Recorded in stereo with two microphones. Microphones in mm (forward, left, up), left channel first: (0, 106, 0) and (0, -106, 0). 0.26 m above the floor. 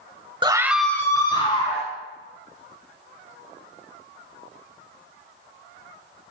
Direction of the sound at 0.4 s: 20° right (ahead or behind).